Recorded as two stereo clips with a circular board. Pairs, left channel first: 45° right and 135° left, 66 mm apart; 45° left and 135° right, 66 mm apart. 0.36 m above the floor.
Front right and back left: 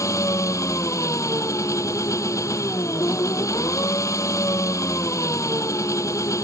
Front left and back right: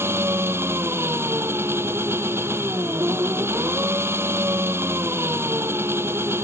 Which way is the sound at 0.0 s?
85° right.